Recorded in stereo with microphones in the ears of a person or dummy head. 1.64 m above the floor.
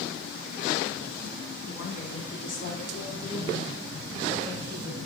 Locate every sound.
1.7 s a woman speaking: 75° left (ahead or behind), 4.5 m; by 5.0 s 25° left (ahead or behind), 6.5 m